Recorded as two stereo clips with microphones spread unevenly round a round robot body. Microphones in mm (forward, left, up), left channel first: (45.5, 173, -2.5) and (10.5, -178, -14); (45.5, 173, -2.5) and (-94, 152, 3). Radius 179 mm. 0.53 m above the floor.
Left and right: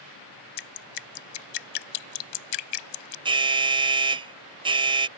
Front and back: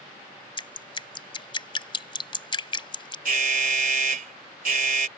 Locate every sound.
0.6 s dripping: 65° left
3.2 s an alarm: 170° right